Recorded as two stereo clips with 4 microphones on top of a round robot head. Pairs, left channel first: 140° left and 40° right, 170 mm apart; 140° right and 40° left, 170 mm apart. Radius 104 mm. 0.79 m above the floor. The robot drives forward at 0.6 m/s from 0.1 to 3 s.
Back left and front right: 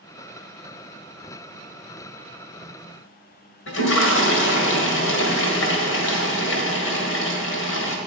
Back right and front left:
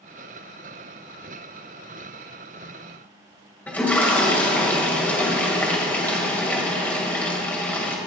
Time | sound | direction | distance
3.7 | a toilet flushing | 140° left | 1.8 m